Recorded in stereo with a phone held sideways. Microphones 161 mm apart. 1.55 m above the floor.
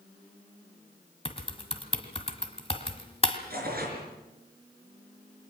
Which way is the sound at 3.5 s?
70° right (ahead or behind).